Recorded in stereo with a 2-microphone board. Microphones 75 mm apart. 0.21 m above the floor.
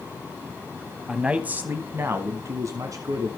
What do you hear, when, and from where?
1.1 s a man speaking: 10° right (ahead or behind), 1.0 m; by 3.3 s 55° right (ahead or behind), 1.7 m